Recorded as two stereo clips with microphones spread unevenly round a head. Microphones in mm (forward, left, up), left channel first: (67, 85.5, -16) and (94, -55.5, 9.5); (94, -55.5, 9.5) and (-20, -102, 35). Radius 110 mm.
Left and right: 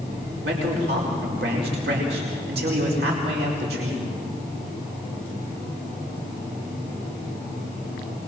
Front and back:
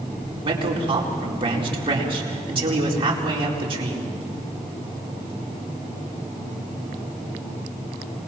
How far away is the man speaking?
About 4.5 m.